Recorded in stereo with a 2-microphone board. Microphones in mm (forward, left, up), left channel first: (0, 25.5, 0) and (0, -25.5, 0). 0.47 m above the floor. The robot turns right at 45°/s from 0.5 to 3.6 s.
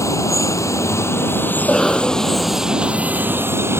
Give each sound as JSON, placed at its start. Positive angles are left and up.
{"t": 0.0, "sound": "running water", "azimuth_deg": 90}
{"t": 1.6, "sound": "a cough", "azimuth_deg": 160}